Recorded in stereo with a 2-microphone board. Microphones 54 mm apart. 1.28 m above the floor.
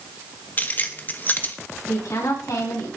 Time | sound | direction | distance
0.6 | keys jangling | 30° left (ahead or behind) | 1.4 m
1.9 | a woman speaking | 85° left | 8 m